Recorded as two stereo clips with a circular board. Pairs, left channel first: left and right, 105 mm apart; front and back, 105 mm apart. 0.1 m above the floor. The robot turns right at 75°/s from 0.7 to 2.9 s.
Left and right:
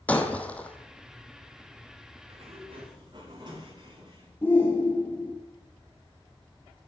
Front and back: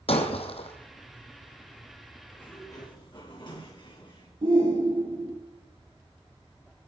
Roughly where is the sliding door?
Right.